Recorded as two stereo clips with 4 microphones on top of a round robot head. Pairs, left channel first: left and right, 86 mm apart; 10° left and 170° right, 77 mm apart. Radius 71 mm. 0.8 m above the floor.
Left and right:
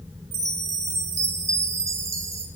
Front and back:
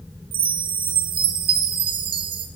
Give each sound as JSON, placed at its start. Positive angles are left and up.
{"t": 0.3, "sound": "a chime", "azimuth_deg": -155, "distance_m": 4.0}